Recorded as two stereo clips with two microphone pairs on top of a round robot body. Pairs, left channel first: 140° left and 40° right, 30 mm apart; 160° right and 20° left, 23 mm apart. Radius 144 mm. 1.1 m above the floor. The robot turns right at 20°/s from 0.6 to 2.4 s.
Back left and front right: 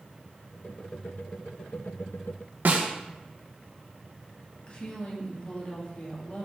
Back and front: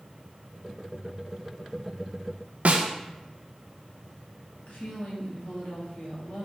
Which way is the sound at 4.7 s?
165° right.